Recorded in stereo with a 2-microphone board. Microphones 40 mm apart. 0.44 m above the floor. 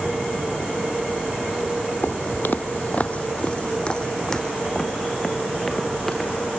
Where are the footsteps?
60° left (ahead or behind), 0.8 m; by 6.3 s 5° left (ahead or behind), 2.5 m.